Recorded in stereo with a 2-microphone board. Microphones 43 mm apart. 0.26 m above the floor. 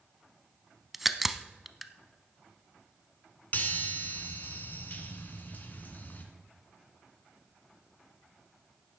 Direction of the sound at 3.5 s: 45° left (ahead or behind).